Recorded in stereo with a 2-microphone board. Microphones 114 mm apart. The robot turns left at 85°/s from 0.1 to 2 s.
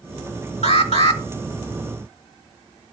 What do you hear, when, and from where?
0.6 s an alarm: 105° left, 1.1 m; by 1.2 s 55° left, 1.1 m